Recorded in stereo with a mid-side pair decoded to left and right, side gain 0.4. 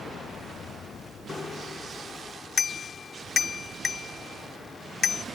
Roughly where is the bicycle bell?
Ahead left.